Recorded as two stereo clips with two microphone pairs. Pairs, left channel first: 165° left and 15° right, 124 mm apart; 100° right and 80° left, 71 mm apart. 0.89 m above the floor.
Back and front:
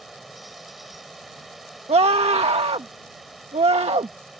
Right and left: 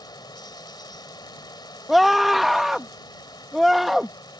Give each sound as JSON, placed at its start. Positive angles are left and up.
{"t": 0.0, "sound": "running water", "azimuth_deg": -105}
{"t": 1.9, "sound": "a scream", "azimuth_deg": -10}